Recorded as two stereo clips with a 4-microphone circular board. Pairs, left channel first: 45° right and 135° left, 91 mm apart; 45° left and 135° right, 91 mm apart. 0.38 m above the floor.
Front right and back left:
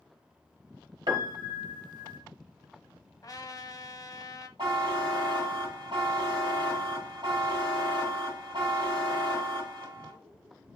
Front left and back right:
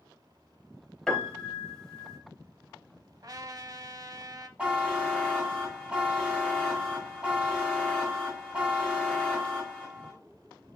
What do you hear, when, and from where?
1.1 s a piano: 125° left, 1.1 m
3.2 s a trumpet: 90° right, 0.5 m
4.6 s a buzzer: 155° left, 2 m